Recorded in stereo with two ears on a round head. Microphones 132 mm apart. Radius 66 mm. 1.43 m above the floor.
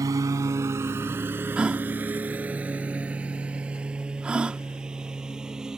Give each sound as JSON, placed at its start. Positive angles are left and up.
{"t": 0.0, "sound": "a lawn mower", "side_deg": -25}
{"t": 1.6, "sound": "a gasp", "side_deg": -5}